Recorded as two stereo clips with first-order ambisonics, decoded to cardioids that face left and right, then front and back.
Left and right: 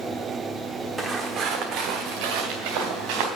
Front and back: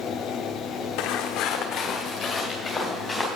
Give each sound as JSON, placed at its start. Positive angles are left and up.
{"t": 1.0, "sound": "footsteps", "azimuth_deg": -15, "distance_m": 1.3}